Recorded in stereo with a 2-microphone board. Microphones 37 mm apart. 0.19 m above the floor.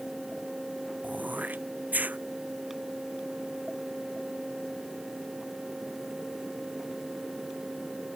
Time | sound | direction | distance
1.0 | throat clearing | 50° right (ahead or behind) | ?